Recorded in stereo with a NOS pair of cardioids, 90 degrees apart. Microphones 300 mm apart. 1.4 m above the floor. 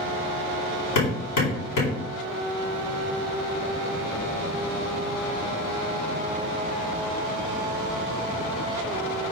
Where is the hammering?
70° left, 4.5 m.